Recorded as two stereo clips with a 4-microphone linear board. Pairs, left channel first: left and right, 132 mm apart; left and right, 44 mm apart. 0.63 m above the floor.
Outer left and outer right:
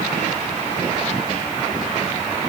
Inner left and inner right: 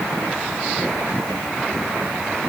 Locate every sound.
Only background noise.